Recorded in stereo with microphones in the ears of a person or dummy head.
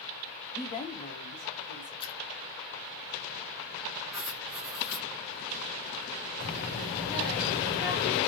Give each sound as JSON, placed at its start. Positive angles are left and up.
{"t": 0.6, "sound": "a woman speaking", "side_deg": 10, "distance_m": 0.6}
{"t": 2.0, "sound": "a splash", "side_deg": 30, "distance_m": 1.3}
{"t": 4.1, "sound": "writing", "side_deg": -5, "distance_m": 0.9}
{"t": 6.4, "sound": "a child speaking", "side_deg": 65, "distance_m": 2.5}